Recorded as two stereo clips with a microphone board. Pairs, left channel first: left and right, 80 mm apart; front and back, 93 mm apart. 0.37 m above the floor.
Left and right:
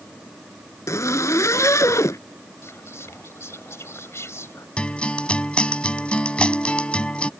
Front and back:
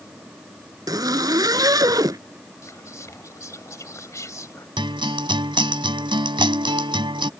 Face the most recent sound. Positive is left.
turn(degrees=165)